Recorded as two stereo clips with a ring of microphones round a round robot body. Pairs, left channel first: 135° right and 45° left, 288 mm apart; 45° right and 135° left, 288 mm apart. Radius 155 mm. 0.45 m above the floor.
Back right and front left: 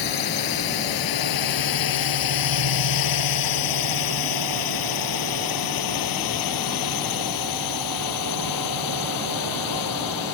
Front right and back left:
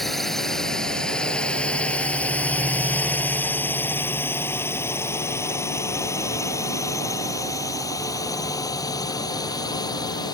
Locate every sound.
0.0 s a drone: 135° right; by 10.3 s 120° right